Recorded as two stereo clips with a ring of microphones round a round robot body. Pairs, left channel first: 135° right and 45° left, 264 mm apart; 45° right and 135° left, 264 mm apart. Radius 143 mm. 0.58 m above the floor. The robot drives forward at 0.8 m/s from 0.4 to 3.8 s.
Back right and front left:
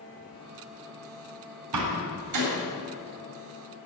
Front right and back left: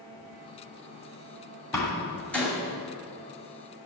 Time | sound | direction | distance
1.7 | a door slam | 35° left | 3 m